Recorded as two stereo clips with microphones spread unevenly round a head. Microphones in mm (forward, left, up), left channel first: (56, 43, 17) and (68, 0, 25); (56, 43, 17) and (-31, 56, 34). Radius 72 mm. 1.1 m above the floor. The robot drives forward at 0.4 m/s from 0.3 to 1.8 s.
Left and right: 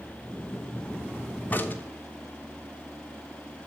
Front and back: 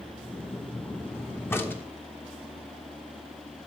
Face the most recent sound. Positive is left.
turn(degrees=60)